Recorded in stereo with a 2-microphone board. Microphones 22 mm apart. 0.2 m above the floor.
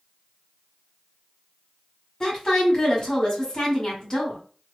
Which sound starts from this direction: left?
A woman speaking, at 2.2 s.